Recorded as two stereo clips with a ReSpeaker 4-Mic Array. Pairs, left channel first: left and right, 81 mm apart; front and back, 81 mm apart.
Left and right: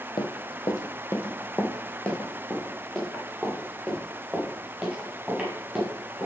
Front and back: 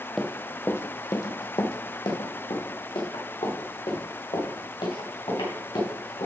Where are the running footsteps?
90° left, 0.9 m; by 6.3 s 5° right, 5 m.